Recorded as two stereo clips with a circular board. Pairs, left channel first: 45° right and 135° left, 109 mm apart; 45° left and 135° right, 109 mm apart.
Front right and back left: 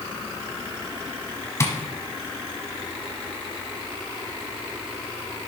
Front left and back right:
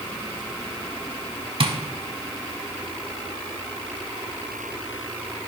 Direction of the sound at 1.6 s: 105° right.